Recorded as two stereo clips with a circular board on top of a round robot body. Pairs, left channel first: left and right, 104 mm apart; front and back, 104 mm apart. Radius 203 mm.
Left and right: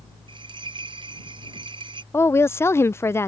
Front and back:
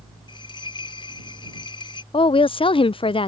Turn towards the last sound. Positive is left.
turn(degrees=25)